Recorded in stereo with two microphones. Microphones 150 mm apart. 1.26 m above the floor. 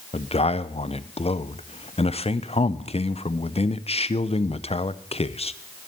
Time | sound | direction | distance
0.1 | a man speaking | 45° left (ahead or behind) | 0.5 m